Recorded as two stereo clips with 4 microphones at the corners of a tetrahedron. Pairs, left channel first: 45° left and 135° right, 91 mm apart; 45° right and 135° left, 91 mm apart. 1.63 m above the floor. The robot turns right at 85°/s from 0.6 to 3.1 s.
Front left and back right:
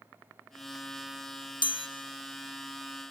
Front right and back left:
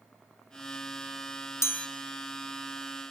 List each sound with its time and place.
1.6 s a chime: 15° left, 0.5 m; by 1.9 s 35° left, 0.5 m